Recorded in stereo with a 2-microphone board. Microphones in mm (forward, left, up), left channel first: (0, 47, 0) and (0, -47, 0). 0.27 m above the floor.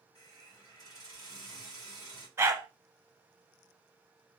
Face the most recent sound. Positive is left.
turn(degrees=-30)  # may be behind; listen again after turning